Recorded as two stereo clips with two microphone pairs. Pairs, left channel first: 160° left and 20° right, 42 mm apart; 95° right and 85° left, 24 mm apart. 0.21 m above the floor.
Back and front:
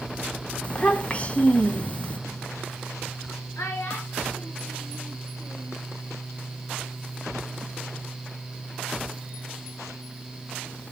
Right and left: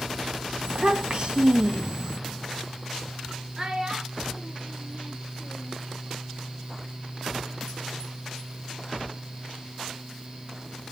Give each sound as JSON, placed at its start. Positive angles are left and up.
{"t": 0.6, "sound": "a child speaking", "azimuth_deg": 110, "distance_m": 1.3}
{"t": 3.6, "sound": "a child speaking", "azimuth_deg": 155, "distance_m": 2.5}